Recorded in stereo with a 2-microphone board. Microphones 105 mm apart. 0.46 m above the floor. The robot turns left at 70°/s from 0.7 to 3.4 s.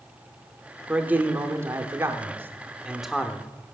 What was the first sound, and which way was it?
A man speaking, 10° right (ahead or behind).